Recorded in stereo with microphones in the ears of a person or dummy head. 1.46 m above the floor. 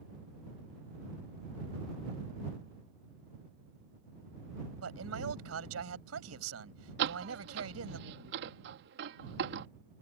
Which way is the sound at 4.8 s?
90° right.